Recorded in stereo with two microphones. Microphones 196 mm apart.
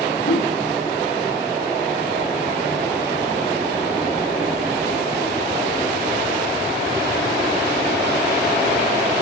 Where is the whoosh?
85° left, 8.5 m.